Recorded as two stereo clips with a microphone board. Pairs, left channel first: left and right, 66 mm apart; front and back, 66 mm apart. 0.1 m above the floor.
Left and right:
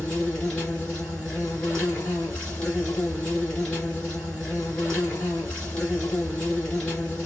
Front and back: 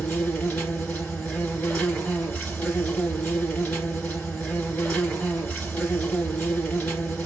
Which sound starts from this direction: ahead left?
An insect, at 0.0 s.